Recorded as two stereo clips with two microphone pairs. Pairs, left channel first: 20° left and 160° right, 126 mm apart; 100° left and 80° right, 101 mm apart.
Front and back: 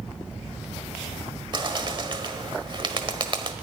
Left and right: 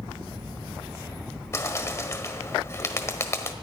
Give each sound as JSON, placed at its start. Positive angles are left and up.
{"t": 1.5, "sound": "a bird", "azimuth_deg": 160, "distance_m": 1.3}